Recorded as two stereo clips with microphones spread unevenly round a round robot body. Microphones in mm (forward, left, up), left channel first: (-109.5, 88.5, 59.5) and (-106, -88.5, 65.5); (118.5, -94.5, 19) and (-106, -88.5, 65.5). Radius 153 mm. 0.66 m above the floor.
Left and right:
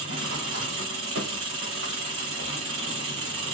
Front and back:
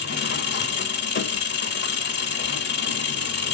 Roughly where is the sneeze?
I don't hear a sneeze.